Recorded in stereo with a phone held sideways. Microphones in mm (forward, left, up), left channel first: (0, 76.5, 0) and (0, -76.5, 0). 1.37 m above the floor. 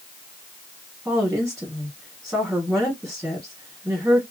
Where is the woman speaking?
5° right (ahead or behind), 1.3 m.